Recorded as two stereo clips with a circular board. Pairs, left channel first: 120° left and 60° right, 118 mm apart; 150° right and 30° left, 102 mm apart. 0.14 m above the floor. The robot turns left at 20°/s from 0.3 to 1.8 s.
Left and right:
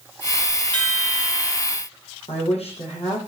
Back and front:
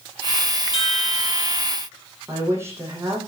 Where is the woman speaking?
95° left, 7 m.